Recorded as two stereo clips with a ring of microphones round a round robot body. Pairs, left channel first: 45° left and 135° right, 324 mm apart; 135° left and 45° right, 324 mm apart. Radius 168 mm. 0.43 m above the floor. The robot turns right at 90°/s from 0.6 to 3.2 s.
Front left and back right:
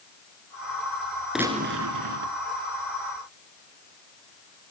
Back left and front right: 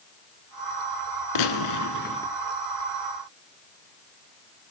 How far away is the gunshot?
About 1.3 m.